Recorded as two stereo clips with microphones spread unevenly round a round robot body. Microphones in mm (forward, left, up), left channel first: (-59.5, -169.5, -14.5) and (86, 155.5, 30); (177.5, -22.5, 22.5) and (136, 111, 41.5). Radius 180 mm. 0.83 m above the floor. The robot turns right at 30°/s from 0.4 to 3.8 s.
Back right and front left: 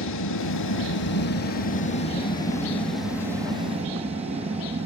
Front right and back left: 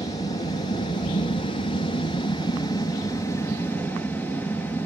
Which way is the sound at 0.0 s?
110° right.